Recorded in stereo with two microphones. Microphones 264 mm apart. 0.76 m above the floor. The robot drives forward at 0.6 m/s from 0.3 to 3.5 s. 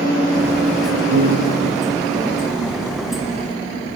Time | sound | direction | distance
1.1 | a piano | 90° right | ?